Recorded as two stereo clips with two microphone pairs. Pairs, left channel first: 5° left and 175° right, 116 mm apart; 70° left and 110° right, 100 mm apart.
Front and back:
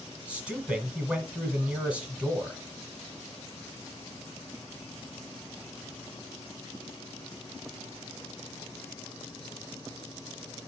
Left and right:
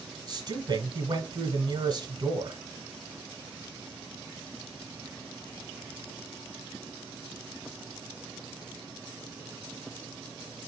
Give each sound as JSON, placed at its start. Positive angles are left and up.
{"t": 0.3, "sound": "a man speaking", "azimuth_deg": -100, "distance_m": 1.4}